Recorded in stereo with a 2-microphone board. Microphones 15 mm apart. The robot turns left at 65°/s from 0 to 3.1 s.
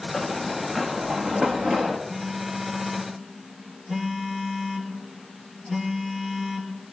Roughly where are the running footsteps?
Left.